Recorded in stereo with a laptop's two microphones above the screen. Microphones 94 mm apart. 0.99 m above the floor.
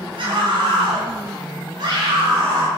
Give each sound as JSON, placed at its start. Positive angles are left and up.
{"t": 0.2, "sound": "a scream", "side_deg": -60, "distance_m": 5.0}